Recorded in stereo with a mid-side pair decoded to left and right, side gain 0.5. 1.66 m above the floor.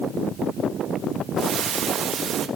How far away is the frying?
About 3 m.